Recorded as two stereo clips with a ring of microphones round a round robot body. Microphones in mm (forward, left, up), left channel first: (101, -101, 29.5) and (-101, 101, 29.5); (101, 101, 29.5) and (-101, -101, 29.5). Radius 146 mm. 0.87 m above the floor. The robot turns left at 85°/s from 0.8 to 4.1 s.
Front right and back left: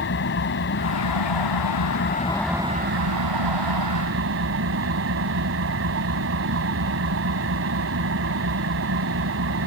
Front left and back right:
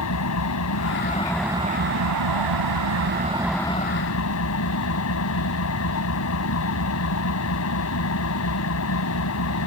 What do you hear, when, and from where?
0.0 s an engine running: 5° left; by 9.7 s 85° left